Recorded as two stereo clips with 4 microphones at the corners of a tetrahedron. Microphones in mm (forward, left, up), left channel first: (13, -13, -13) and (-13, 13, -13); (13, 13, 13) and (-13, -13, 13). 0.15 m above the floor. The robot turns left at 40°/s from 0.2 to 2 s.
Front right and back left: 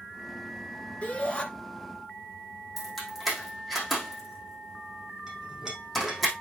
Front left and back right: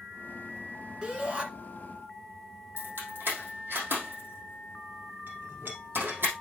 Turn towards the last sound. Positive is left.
turn(degrees=-145)